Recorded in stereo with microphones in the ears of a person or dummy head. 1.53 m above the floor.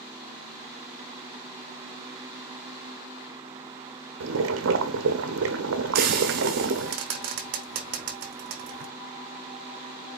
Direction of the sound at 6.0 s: 50° right (ahead or behind).